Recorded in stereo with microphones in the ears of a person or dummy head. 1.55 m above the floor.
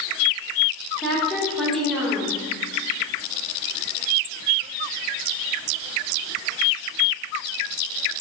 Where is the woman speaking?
Centre (ahead or behind), 1.7 m.